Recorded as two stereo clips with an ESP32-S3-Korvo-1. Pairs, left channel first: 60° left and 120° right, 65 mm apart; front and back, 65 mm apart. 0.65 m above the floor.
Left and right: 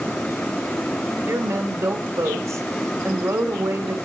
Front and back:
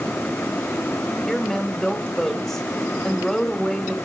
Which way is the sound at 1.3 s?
85° right.